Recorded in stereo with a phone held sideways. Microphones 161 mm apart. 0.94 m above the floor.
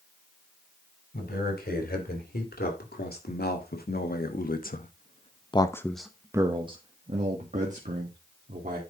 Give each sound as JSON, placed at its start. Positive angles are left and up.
{"t": 1.1, "sound": "a man speaking", "side_deg": 85, "distance_m": 3.5}